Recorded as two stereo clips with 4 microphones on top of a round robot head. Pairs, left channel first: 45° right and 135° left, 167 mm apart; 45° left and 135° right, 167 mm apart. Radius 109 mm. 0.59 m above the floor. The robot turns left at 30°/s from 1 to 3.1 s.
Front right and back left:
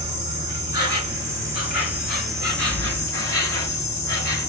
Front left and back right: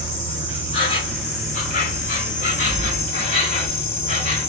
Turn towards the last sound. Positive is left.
turn(degrees=20)